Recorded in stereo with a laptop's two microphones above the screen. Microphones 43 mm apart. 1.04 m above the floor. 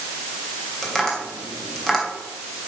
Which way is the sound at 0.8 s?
5° left (ahead or behind).